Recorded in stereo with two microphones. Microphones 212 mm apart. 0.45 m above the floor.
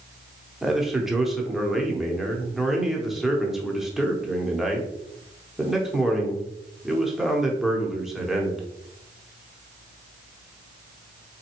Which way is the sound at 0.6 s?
Centre (ahead or behind).